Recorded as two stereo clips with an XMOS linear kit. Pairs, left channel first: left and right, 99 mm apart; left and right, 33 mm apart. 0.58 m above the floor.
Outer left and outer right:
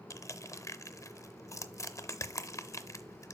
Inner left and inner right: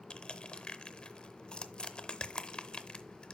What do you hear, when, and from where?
0.1 s crushing: 30° left (ahead or behind), 0.6 m